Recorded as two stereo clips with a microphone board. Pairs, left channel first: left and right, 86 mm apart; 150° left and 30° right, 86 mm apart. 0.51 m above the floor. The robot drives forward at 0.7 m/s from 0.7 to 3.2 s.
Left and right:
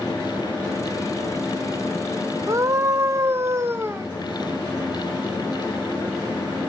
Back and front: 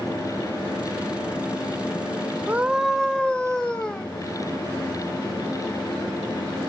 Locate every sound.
2.5 s a scream: 90° right, 0.9 m; by 4.1 s 135° right, 1.0 m